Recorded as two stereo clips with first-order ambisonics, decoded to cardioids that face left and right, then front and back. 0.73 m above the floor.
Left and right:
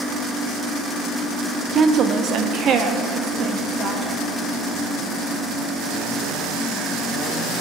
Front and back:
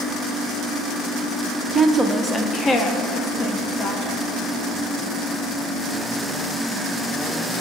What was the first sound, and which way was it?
A woman speaking, 130° right.